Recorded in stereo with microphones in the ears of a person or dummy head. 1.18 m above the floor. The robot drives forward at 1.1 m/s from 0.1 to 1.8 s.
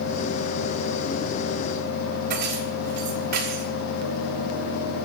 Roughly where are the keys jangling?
Right.